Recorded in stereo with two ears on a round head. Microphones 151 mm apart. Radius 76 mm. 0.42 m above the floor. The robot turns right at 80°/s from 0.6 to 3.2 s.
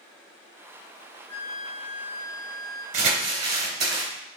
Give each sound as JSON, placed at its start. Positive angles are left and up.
{"t": 1.3, "sound": "a flute", "azimuth_deg": 160, "distance_m": 1.6}
{"t": 2.9, "sound": "crumpling", "side_deg": -45, "distance_m": 3.0}